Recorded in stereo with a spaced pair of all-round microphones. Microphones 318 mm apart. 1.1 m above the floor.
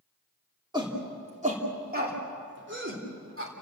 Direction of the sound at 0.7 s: 15° right (ahead or behind).